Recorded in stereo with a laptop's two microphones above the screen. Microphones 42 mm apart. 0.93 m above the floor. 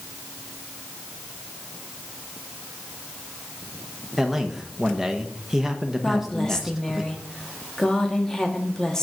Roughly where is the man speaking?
Centre.